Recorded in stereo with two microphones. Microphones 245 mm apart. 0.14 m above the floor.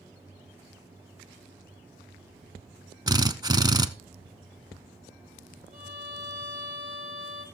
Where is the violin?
25° right (ahead or behind), 2.5 m.